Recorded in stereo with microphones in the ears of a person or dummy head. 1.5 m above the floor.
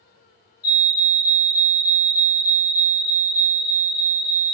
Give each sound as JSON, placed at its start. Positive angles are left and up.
{"t": 0.6, "sound": "a fire alarm", "side_deg": 45, "distance_m": 1.3}